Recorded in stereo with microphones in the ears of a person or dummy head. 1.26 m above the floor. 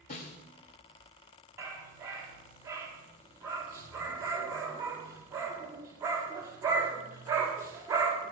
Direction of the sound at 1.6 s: 20° right (ahead or behind).